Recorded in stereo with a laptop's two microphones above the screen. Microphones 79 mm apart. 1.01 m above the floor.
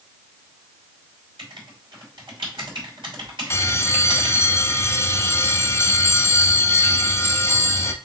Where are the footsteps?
No footsteps in this recording.